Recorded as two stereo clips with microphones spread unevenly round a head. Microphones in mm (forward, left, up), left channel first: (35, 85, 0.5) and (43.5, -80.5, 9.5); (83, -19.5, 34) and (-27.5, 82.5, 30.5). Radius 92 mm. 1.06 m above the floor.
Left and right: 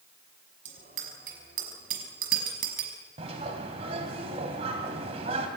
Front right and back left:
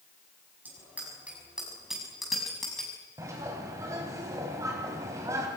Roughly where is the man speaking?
No man speaking in this recording.